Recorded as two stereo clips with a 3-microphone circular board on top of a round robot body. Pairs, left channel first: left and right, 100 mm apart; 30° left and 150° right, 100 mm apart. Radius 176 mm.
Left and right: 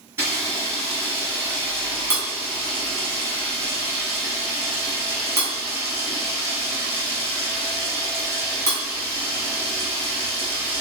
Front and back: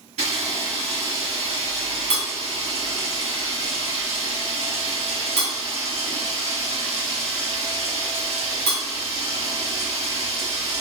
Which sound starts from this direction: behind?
A camera shutter, at 0.2 s.